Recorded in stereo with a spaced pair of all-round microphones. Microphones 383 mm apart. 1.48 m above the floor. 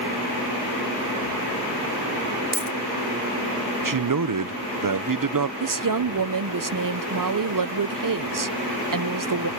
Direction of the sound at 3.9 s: 55° right (ahead or behind).